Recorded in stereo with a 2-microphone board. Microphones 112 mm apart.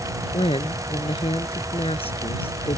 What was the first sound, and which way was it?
A woman speaking, 60° left (ahead or behind).